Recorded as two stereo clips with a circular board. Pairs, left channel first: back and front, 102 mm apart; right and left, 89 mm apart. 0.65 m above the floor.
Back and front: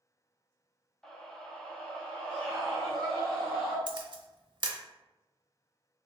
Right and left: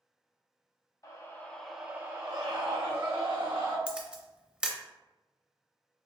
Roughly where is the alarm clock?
No alarm clock in this recording.